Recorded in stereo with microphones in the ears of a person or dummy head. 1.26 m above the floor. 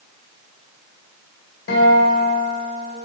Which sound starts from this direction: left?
A guitar, at 1.7 s.